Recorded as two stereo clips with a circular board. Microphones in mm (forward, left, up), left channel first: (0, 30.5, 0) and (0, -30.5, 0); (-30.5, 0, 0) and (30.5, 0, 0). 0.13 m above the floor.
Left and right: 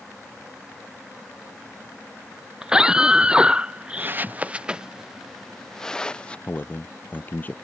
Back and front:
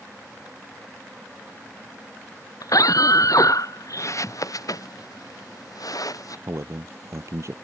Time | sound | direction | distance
2.6 | a scream | 165° right | ?
4.0 | footsteps | 145° right | ?
6.5 | a man speaking | 30° left | ?